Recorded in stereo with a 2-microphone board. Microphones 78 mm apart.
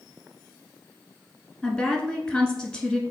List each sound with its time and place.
1.6 s a woman speaking: 5° left (ahead or behind), 1.1 m